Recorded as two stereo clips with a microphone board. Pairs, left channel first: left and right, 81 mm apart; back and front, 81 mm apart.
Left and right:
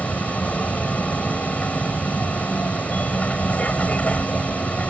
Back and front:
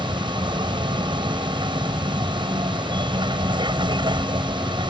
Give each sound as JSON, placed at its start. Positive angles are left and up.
{"t": 0.0, "sound": "a vehicle", "azimuth_deg": 15}